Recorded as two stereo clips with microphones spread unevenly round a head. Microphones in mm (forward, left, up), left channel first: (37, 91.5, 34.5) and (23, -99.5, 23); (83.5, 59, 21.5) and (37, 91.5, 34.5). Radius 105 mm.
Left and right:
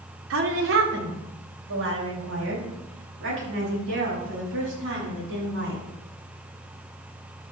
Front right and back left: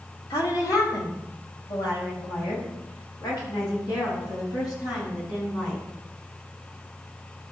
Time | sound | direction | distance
0.3 | a woman speaking | 85° right | 2.5 m